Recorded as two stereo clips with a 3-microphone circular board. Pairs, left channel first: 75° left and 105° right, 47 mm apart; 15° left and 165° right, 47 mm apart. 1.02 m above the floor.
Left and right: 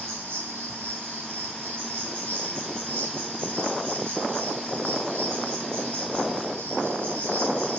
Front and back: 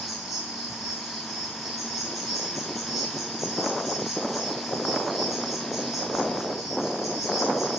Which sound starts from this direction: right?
An insect, at 0.0 s.